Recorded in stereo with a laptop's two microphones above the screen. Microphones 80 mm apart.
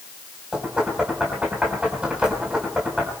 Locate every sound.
0.5 s knocking: 15° right (ahead or behind), 4.5 m